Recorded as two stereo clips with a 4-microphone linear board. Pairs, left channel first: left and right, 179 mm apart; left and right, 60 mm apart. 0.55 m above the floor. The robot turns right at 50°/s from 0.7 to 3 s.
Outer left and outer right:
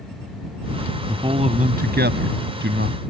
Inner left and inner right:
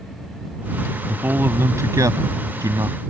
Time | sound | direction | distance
1.1 | a man speaking | 160° right | ?